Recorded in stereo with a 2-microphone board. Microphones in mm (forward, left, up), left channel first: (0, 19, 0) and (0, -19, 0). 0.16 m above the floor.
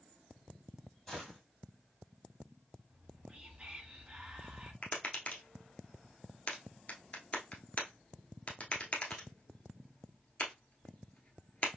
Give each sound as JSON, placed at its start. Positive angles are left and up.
{"t": 1.1, "sound": "a gunshot", "side_deg": 10, "distance_m": 2.0}
{"t": 2.9, "sound": "whispering", "side_deg": -30, "distance_m": 1.1}
{"t": 4.8, "sound": "tapping", "side_deg": 40, "distance_m": 1.1}